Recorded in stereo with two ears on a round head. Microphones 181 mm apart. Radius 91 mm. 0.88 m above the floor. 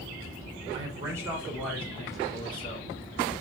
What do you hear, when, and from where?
0.7 s a man speaking: 25° right (ahead or behind), 1.0 m; by 2.9 s 35° left (ahead or behind), 1.1 m